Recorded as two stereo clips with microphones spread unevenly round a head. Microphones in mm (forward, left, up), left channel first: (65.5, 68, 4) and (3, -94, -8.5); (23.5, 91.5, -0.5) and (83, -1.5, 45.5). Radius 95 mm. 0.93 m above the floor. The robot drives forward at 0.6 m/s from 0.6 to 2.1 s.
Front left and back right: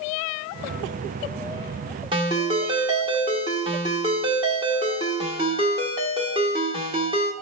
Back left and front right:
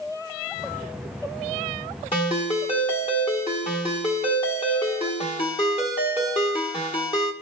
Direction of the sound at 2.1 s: Straight behind.